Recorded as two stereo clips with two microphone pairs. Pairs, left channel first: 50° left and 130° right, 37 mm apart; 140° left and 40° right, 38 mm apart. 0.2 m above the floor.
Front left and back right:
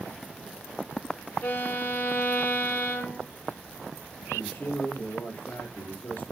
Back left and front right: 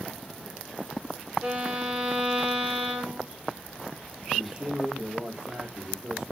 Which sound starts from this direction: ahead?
A violin, at 1.4 s.